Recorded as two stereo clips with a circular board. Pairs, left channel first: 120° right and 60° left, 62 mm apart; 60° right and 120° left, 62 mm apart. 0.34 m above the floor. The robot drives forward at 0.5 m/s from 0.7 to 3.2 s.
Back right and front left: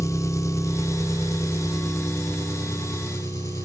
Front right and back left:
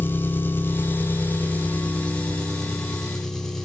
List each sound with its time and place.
0.0 s an engine running: 110° right, 1.5 m; by 3.6 s 145° right, 2 m